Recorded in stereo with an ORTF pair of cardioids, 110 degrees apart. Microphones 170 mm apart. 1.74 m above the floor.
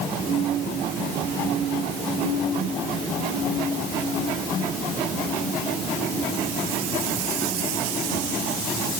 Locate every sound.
Only background noise.